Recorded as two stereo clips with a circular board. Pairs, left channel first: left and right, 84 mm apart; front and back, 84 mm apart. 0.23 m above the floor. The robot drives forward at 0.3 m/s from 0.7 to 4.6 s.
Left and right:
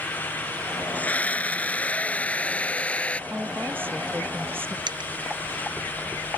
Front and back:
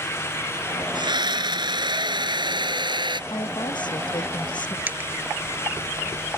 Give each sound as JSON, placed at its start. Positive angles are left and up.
{"t": 0.9, "sound": "a scream", "azimuth_deg": 160}
{"t": 3.3, "sound": "a woman speaking", "azimuth_deg": -25}
{"t": 4.9, "sound": "a dropped coin", "azimuth_deg": -110}